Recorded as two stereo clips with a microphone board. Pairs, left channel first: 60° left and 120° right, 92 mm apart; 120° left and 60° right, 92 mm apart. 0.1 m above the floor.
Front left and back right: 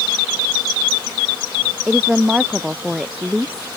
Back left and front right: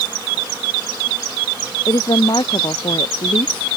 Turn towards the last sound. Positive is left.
turn(degrees=155)